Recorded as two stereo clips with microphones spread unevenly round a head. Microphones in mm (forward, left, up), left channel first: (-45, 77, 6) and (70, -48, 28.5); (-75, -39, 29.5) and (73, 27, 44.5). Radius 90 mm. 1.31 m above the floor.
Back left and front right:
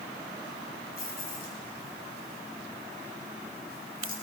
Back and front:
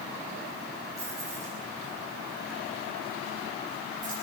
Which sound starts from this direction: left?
Keys jangling, at 1.0 s.